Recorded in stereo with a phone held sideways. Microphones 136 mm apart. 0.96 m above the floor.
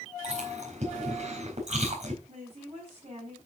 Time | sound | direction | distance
0.2 | chewing | 55° right (ahead or behind) | 4 m
2.3 | a woman speaking | 50° right (ahead or behind) | 5.5 m